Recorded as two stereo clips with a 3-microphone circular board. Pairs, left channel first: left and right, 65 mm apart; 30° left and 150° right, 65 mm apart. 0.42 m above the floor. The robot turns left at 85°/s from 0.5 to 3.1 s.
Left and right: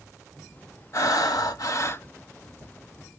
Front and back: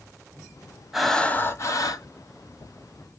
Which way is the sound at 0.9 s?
125° left.